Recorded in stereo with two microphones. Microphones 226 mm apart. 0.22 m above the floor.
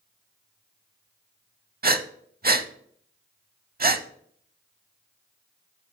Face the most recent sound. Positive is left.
turn(degrees=-45)  # may be behind; listen again after turning